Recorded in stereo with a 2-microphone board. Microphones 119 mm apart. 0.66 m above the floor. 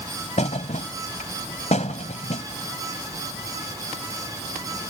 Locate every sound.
0.4 s a thud: 85° left